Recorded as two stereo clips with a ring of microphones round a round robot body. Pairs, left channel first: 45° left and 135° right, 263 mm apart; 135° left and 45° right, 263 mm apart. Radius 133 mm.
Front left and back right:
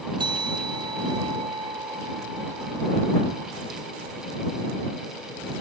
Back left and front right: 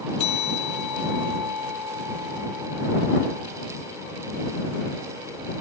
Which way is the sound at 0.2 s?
150° left.